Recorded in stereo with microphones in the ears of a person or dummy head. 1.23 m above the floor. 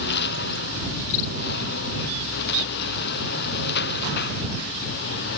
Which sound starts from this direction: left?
A lawn mower, at 0.0 s.